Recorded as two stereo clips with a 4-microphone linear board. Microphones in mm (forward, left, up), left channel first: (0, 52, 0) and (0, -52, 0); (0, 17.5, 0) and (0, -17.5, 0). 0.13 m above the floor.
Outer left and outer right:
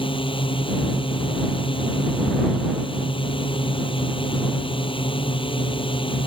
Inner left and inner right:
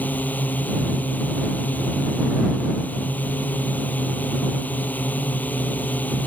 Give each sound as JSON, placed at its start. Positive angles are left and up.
{"t": 0.0, "sound": "a drone", "side_deg": 55}